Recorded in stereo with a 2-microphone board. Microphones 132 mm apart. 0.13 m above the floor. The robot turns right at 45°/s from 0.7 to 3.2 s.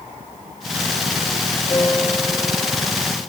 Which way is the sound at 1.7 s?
165° left.